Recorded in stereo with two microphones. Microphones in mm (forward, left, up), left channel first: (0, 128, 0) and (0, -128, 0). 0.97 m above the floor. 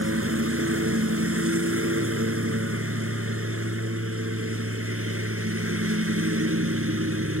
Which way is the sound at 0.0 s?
70° right (ahead or behind).